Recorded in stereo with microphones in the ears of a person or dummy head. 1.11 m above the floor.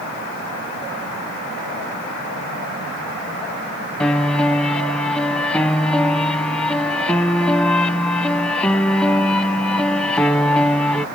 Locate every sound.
4.0 s a piano: 5° left (ahead or behind)